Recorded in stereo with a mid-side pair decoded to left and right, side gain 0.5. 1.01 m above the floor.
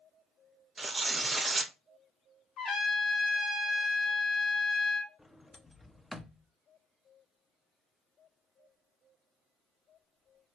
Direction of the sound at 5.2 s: 10° left.